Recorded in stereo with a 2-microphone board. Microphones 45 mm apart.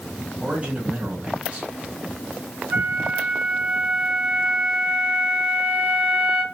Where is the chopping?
No chopping in this recording.